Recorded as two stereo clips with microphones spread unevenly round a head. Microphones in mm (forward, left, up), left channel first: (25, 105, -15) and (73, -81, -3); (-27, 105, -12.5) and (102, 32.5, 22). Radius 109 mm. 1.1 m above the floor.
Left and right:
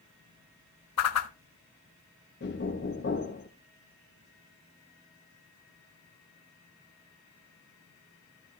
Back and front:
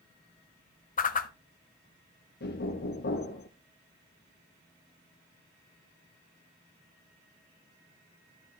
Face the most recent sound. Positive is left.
turn(degrees=155)